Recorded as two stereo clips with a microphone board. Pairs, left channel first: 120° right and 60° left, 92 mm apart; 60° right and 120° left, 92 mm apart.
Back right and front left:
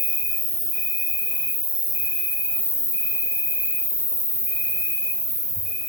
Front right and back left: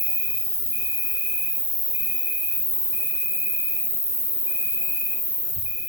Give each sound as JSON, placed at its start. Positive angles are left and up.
{"t": 0.0, "sound": "an insect", "azimuth_deg": -175, "distance_m": 1.7}